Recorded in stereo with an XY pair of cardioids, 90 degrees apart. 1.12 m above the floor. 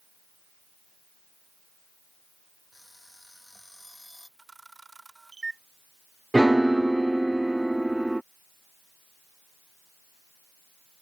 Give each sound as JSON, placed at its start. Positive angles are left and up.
{"t": 2.7, "sound": "an alarm clock", "azimuth_deg": 5}
{"t": 4.4, "sound": "a camera shutter", "azimuth_deg": -30}
{"t": 6.3, "sound": "a piano", "azimuth_deg": -10}